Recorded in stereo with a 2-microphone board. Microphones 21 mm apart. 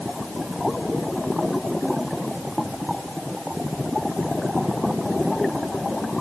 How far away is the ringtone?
I don't hear a ringtone.